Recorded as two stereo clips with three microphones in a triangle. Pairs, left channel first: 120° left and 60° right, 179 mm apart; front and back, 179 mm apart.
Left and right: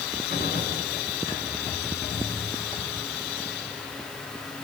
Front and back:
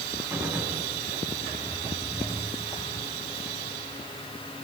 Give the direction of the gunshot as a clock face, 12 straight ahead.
9 o'clock.